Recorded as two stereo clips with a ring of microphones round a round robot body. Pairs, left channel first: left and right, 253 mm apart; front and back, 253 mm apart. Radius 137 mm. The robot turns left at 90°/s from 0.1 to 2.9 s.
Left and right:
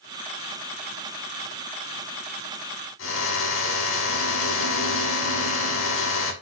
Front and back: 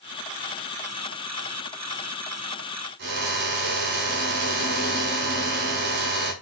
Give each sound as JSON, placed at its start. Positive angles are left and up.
{"t": 3.0, "sound": "a drill", "azimuth_deg": 125, "distance_m": 6.0}